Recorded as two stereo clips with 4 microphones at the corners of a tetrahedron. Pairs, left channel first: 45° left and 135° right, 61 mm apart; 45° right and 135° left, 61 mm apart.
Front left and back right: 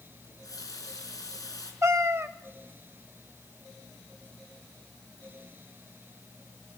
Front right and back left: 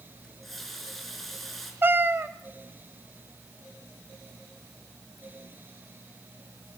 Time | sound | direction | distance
0.2 | a running tap | 40° left | 4.5 m
1.8 | a cat meowing | 175° right | 1.0 m